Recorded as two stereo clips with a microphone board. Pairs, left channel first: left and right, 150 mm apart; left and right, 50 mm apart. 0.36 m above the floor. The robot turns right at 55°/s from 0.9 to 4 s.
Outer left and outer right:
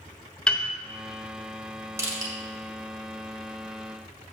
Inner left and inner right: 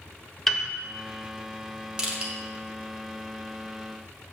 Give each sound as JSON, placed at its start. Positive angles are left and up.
{"t": 0.5, "sound": "a piano", "side_deg": 5, "distance_m": 1.0}
{"t": 2.0, "sound": "crushing", "side_deg": -20, "distance_m": 1.9}